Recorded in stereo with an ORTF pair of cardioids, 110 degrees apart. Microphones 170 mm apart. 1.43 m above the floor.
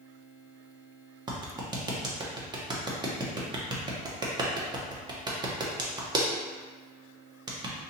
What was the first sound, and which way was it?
A clap, 25° right.